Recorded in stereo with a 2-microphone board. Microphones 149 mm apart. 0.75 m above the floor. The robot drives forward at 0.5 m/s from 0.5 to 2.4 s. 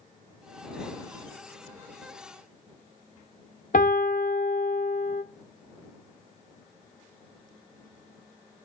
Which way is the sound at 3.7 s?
65° left (ahead or behind).